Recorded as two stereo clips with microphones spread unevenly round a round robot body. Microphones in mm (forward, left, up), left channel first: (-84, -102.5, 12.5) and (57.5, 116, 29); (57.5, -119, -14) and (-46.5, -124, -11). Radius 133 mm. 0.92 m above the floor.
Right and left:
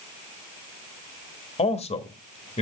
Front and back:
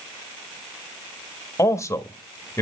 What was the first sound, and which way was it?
A man speaking, 60° right.